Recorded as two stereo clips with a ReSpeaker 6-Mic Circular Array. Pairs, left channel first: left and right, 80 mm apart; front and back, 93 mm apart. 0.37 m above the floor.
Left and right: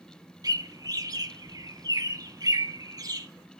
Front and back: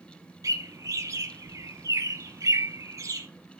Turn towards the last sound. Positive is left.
turn(degrees=-125)